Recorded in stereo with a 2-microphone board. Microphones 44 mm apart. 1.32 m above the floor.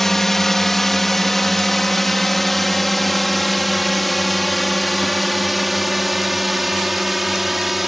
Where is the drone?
10° left (ahead or behind); by 7.9 s centre (ahead or behind).